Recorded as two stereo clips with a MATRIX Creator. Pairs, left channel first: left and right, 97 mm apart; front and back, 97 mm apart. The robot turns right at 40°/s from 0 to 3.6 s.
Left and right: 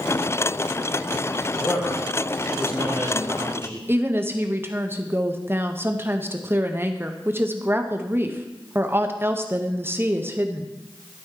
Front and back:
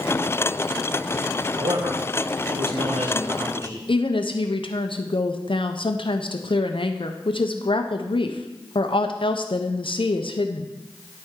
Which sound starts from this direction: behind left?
A man speaking, at 1.6 s.